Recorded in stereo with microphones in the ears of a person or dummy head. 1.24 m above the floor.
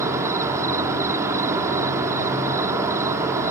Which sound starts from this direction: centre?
An insect, at 0.0 s.